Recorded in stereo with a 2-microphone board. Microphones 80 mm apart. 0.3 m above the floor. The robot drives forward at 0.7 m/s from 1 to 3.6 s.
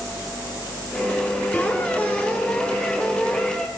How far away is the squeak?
About 1.4 m.